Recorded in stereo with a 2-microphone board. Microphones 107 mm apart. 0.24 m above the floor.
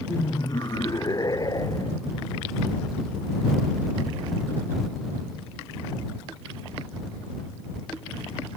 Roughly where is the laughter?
Left.